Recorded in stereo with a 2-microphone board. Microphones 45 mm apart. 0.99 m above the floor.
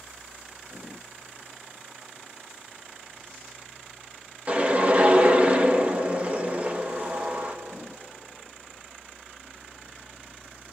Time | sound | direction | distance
4.5 | a whoosh | 30° right (ahead or behind) | 1.4 m